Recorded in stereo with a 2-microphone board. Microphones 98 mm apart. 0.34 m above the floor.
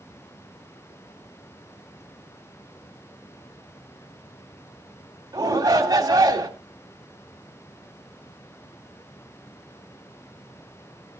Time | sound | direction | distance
5.3 | a shout | 35° right (ahead or behind) | 1.8 m